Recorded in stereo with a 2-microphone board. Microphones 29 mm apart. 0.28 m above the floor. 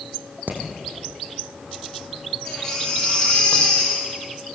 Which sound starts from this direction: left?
A baby crying, at 2.5 s.